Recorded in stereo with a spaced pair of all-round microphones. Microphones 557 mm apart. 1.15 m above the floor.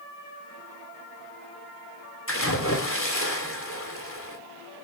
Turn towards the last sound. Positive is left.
turn(degrees=25)  # may be behind; listen again after turning